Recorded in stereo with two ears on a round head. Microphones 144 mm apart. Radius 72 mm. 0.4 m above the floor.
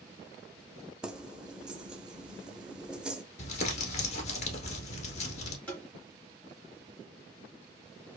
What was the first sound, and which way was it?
Keys jangling, 5° right (ahead or behind).